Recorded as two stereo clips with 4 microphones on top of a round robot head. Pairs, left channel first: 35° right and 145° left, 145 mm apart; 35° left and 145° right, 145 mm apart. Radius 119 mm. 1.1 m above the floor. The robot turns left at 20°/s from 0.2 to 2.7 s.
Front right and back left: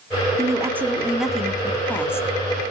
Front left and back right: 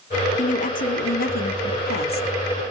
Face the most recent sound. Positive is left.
turn(degrees=25)